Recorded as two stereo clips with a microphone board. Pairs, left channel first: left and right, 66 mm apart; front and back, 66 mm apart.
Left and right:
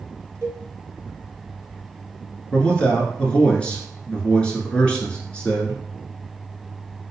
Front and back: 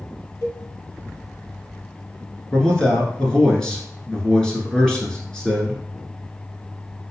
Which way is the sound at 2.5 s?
55° left.